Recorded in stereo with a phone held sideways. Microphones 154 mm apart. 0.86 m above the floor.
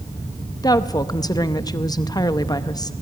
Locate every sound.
0.6 s a woman speaking: 25° left (ahead or behind), 0.7 m